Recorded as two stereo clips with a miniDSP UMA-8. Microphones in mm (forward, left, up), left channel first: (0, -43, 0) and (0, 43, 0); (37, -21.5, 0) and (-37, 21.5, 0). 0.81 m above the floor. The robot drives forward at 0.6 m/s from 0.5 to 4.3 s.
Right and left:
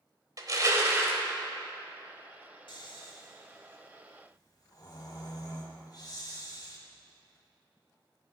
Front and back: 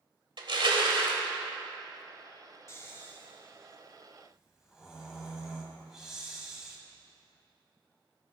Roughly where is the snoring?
Right.